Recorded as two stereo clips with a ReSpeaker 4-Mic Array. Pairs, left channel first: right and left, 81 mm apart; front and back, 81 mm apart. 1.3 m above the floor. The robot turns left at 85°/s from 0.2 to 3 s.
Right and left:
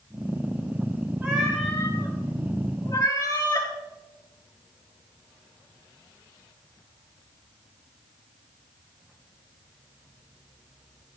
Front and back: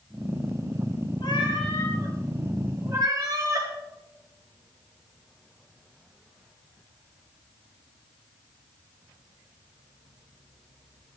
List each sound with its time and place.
1.2 s a cat meowing: 20° left, 5 m; by 3.7 s 135° right, 5 m